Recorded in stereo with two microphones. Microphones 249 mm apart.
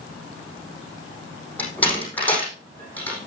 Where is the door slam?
5° left (ahead or behind), 5 m.